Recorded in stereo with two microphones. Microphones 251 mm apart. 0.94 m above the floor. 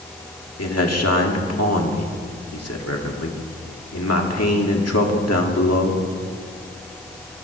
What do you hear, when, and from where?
0.6 s a man speaking: 75° left (ahead or behind), 1.8 m